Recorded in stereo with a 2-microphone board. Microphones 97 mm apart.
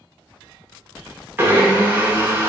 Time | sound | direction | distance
1.4 | a blender | 20° right (ahead or behind) | 1.1 m